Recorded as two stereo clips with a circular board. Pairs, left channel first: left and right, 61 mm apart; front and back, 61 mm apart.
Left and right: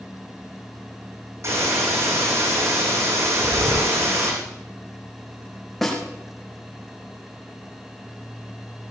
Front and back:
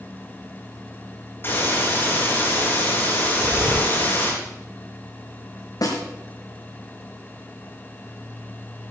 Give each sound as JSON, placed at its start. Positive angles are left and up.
{"t": 1.4, "sound": "a hiss", "azimuth_deg": -55, "distance_m": 6.5}
{"t": 3.3, "sound": "breathing", "azimuth_deg": -110, "distance_m": 2.5}
{"t": 5.8, "sound": "a snare drum", "azimuth_deg": 5, "distance_m": 5.0}